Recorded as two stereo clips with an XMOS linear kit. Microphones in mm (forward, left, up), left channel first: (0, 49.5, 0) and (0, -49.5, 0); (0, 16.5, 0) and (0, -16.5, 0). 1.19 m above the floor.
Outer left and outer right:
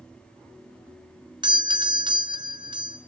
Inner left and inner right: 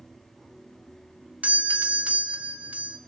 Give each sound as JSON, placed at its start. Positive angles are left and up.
{"t": 1.4, "sound": "a doorbell", "side_deg": -50, "distance_m": 0.6}